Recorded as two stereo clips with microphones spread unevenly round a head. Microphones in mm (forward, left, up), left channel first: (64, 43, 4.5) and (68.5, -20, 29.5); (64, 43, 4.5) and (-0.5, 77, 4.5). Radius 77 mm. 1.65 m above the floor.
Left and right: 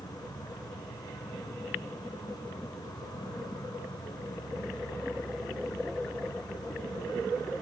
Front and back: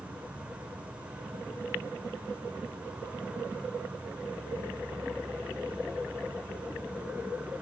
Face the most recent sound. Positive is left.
turn(degrees=80)